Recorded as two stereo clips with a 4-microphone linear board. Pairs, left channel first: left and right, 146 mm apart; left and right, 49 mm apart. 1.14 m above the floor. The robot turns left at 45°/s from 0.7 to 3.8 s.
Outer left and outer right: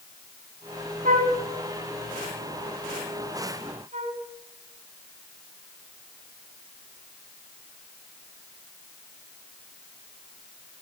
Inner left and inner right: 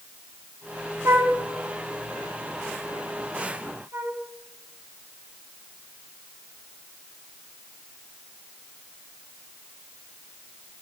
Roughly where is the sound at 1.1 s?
Right.